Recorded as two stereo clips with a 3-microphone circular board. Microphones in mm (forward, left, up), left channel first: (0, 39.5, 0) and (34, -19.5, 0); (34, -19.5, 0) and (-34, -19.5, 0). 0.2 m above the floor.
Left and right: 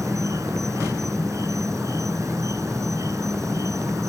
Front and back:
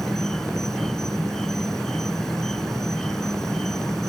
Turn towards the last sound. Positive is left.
turn(degrees=-80)